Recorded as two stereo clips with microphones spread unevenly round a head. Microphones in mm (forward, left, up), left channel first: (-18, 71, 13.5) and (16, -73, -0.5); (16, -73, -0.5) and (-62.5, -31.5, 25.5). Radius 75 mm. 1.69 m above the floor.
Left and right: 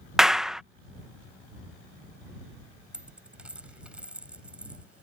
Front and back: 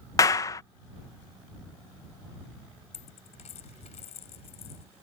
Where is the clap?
20° left.